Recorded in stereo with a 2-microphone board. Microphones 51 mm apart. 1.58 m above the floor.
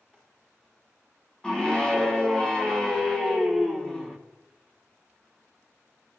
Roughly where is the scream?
Centre.